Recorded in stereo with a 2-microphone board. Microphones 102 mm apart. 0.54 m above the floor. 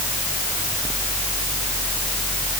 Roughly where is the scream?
I don't hear a scream.